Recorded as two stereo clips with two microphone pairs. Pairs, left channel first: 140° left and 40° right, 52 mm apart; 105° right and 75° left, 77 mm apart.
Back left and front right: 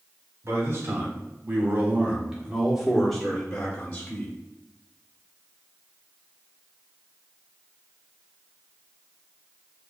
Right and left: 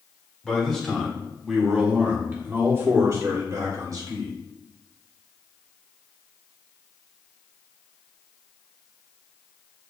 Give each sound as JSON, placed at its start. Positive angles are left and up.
{"t": 0.4, "sound": "a man speaking", "azimuth_deg": -25, "distance_m": 1.5}